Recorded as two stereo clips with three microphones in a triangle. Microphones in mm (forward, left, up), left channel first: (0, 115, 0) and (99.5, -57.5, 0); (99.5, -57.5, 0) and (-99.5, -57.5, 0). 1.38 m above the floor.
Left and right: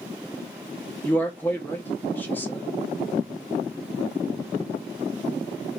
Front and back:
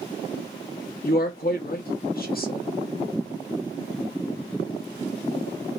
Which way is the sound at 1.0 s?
40° left.